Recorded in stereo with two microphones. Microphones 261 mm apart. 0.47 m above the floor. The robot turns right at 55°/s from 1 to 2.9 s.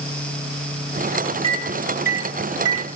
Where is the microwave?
20° right (ahead or behind), 2.5 m; by 2.9 s 70° right (ahead or behind), 2.5 m.